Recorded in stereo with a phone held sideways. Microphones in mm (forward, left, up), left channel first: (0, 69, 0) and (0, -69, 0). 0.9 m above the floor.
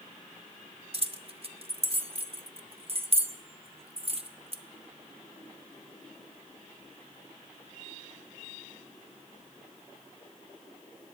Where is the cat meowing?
I don't hear a cat meowing.